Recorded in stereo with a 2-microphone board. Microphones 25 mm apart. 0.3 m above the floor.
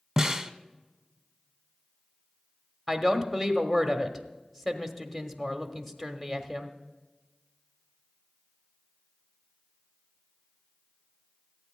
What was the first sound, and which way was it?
A snare drum, 15° right (ahead or behind).